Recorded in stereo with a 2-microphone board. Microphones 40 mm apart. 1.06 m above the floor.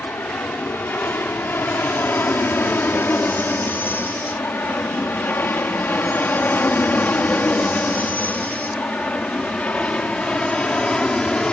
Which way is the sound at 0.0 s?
55° left (ahead or behind).